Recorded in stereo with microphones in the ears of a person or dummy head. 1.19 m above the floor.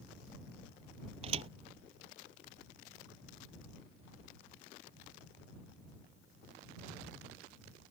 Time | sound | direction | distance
1.2 | a thud | 35° right (ahead or behind) | ?